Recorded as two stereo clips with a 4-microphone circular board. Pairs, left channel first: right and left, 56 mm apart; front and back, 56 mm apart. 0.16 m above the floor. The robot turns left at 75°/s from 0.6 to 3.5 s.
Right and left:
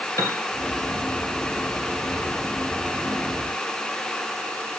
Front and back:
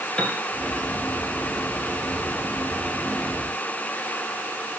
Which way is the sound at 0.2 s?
75° right.